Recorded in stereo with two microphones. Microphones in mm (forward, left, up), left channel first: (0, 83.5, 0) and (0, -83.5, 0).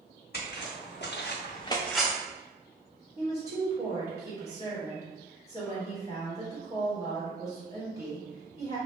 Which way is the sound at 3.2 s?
20° left (ahead or behind).